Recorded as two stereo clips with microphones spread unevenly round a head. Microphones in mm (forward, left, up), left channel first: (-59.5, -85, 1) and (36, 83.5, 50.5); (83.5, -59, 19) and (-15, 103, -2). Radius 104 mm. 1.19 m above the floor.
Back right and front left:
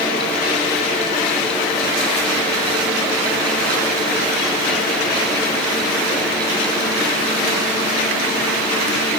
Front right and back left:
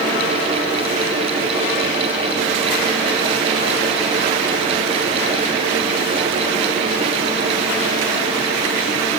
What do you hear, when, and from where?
Only background noise.